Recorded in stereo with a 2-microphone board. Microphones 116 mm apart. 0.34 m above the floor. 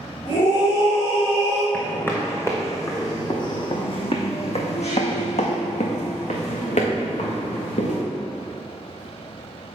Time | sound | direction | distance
0.2 | a scream | 50° left (ahead or behind) | 2.5 m
1.7 | footsteps | 15° left (ahead or behind) | 1.9 m